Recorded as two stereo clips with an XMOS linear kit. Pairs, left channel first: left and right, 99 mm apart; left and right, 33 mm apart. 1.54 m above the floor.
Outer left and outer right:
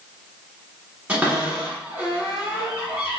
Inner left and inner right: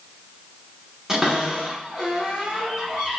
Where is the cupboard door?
10° right (ahead or behind), 1.5 m.